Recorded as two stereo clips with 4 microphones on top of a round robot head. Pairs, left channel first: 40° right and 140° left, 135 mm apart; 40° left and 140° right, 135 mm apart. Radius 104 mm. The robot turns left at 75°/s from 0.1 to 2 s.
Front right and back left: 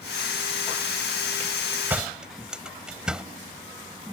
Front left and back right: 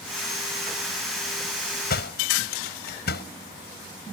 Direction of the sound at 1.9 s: 60° left.